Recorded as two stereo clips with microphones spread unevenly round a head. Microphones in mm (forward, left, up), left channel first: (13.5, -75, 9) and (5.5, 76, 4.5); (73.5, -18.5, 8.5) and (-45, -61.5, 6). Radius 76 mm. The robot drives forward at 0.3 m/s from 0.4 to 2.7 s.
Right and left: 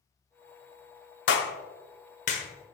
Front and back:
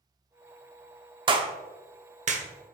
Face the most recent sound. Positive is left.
turn(degrees=-140)